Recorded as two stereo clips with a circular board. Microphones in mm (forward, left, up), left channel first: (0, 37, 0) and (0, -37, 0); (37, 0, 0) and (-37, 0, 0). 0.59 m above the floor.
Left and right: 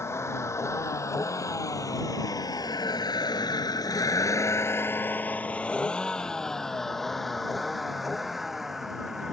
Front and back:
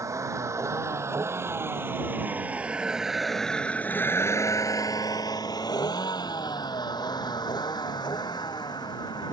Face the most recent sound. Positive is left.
turn(degrees=-5)